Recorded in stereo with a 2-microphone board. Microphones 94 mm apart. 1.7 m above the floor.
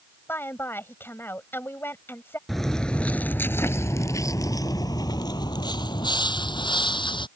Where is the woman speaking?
25° left (ahead or behind).